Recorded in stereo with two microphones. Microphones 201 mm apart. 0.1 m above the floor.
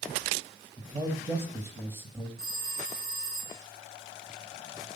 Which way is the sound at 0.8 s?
10° right (ahead or behind).